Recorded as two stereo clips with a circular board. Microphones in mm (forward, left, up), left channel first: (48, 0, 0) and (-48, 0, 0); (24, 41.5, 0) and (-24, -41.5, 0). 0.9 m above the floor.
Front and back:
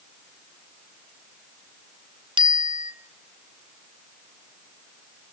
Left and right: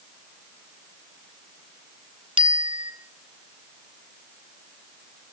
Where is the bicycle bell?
145° right, 2.5 m.